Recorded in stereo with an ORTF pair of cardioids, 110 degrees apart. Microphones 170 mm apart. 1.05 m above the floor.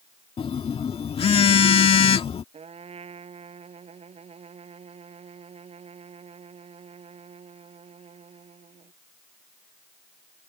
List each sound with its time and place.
0.4 s a phone buzzing: 35° left
2.5 s a trumpet: 35° right